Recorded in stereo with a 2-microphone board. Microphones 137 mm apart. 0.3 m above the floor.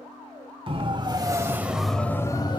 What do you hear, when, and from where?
0.7 s a siren: 40° right (ahead or behind), 2.5 m; by 2.6 s 35° left (ahead or behind), 1.8 m